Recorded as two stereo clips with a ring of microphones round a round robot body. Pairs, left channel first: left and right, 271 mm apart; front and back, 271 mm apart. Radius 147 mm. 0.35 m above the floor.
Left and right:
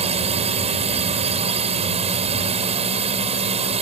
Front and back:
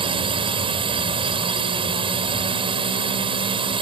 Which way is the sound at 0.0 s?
130° right.